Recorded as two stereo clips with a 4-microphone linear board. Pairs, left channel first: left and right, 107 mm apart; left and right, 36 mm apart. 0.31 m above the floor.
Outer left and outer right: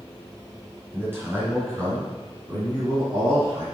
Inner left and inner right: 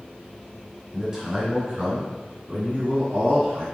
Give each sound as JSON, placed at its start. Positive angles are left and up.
{"t": 0.9, "sound": "a man speaking", "side_deg": -20, "distance_m": 3.5}